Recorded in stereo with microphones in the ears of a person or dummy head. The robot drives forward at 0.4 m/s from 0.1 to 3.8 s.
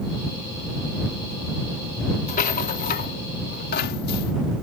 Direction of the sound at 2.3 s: 50° left (ahead or behind).